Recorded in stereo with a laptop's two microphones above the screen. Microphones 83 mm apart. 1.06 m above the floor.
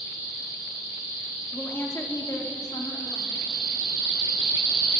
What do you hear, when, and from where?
1.5 s a woman speaking: 15° left (ahead or behind), 2.5 m; by 3.6 s 75° left (ahead or behind), 3.5 m